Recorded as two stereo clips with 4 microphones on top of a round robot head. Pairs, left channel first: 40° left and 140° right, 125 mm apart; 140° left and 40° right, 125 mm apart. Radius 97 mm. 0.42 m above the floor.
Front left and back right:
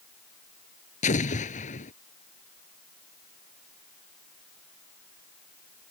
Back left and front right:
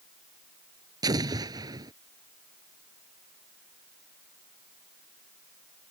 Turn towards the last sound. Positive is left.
turn(degrees=20)